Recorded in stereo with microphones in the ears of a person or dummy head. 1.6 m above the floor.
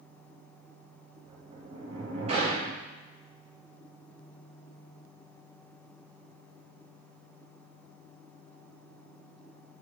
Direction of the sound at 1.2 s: 40° right (ahead or behind).